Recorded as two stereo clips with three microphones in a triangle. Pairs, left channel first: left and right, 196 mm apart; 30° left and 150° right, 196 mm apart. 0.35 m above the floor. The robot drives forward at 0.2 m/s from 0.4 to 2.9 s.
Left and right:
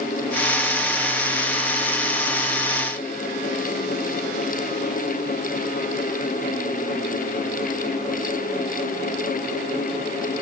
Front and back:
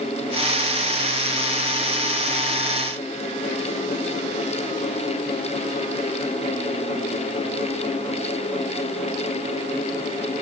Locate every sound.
Only background noise.